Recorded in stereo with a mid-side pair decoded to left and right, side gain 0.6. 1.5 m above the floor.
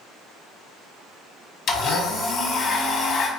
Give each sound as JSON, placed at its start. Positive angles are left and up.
{"t": 1.7, "sound": "a blender", "azimuth_deg": 45, "distance_m": 0.8}